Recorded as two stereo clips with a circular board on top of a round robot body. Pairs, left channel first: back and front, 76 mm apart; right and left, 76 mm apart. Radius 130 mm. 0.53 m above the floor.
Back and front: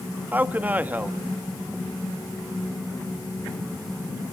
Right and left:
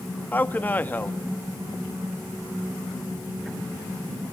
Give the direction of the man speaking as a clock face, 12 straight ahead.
2 o'clock.